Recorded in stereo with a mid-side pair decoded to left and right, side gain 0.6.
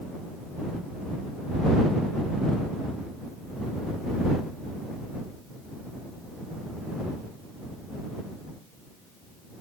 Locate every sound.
Only background noise.